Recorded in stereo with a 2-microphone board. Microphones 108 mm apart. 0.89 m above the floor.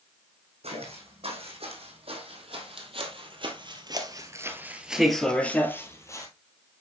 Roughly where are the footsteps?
Right.